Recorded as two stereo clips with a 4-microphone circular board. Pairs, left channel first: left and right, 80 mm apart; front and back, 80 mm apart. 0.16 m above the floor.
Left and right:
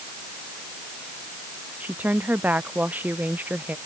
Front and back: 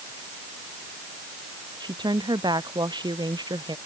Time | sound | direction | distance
1.8 | a woman speaking | 160° right | ?